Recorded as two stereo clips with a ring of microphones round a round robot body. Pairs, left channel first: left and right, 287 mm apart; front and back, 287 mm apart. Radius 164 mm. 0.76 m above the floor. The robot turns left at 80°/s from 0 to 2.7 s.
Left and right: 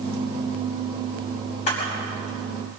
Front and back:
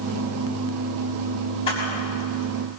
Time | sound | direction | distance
1.7 | a camera shutter | 75° left | 6 m